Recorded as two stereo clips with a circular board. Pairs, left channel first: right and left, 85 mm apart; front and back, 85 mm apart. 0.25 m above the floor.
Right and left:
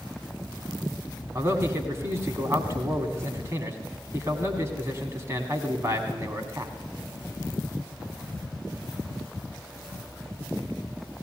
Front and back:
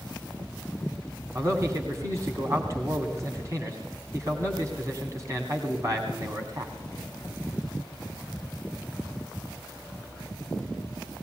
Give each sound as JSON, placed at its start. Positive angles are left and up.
{"t": 1.4, "sound": "a man speaking", "azimuth_deg": 140, "distance_m": 2.0}